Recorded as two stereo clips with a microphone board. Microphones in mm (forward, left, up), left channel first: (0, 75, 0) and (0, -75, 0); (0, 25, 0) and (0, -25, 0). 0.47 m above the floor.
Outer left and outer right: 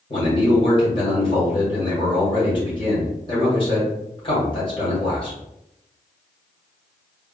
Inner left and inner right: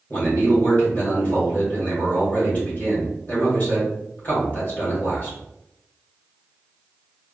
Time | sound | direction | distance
0.1 | a man speaking | 35° left (ahead or behind) | 1.8 m